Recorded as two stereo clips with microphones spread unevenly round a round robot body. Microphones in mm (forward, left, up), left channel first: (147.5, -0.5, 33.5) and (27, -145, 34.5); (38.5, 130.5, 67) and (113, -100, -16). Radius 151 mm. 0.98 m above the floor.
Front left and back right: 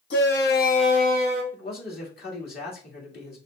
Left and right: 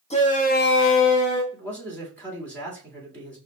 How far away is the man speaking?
About 2 m.